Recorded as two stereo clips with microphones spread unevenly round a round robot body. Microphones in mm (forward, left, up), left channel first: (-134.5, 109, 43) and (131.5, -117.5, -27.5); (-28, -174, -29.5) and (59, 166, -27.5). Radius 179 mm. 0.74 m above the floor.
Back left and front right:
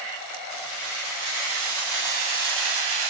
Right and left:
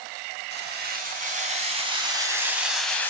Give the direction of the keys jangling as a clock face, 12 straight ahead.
12 o'clock.